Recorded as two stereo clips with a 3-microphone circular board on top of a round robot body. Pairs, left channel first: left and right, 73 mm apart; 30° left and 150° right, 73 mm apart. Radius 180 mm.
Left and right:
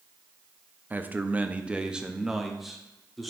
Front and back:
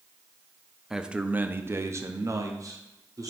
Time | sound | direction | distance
0.9 | a man speaking | 75° right | 0.9 m